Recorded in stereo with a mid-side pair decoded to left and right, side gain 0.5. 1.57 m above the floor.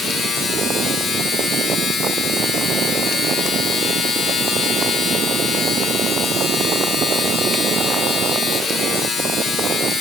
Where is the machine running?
50° left, 1.8 m.